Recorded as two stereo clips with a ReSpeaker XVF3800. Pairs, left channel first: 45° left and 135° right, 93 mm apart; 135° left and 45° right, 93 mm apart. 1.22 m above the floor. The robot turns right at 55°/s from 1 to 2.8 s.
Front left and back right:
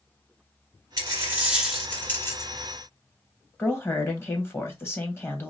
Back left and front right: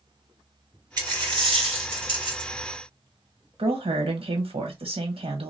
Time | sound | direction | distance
1.0 | a dropped coin | 85° right | 1.8 m
3.6 | a woman speaking | 20° right | 1.1 m